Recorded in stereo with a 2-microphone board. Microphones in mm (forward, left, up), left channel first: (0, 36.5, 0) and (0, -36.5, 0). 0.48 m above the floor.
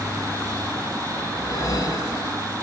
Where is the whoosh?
50° left (ahead or behind), 0.9 m.